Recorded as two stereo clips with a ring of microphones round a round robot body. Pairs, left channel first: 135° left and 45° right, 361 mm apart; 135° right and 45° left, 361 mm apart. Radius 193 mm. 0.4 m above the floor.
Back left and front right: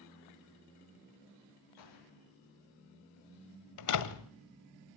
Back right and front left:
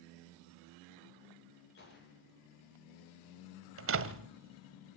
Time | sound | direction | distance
1.8 | a gunshot | 165° left | 7 m
3.8 | a door slam | 100° left | 1.8 m